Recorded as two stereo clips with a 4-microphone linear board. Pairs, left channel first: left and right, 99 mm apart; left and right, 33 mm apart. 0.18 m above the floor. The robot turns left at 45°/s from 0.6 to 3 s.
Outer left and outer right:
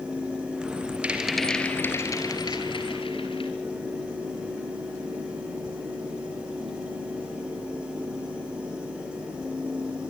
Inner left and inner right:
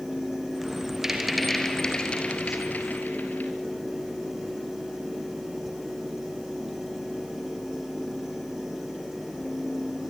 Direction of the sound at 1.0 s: 165° right.